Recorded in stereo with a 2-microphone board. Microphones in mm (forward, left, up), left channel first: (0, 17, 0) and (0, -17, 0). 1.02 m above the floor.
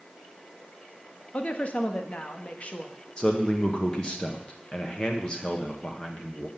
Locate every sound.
1.3 s a woman speaking: 40° left (ahead or behind), 1.3 m
3.2 s a man speaking: 30° left (ahead or behind), 1.2 m